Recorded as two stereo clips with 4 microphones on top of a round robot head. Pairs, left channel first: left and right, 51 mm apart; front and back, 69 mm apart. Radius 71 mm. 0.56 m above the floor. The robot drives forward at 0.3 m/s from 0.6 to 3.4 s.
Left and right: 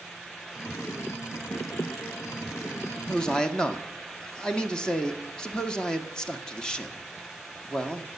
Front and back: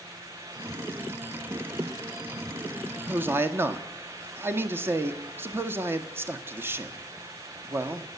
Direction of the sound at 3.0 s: 145° left.